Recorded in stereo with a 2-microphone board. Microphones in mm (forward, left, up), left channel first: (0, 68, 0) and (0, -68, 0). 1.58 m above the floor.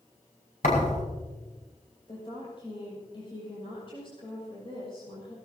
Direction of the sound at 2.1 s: 40° left (ahead or behind).